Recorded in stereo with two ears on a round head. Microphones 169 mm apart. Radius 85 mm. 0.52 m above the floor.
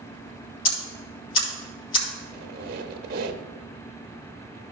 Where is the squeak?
50° right (ahead or behind), 0.9 m.